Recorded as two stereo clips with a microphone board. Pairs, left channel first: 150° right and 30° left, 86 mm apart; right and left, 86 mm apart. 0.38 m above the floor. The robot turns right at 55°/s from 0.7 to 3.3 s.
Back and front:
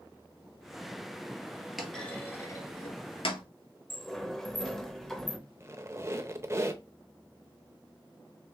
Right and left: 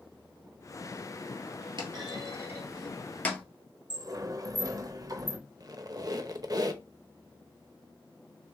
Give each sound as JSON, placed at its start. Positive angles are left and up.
{"t": 1.8, "sound": "a clunk", "azimuth_deg": 115, "distance_m": 1.3}
{"t": 3.9, "sound": "a sliding door", "azimuth_deg": 125, "distance_m": 0.7}
{"t": 5.6, "sound": "a squeak", "azimuth_deg": 75, "distance_m": 0.6}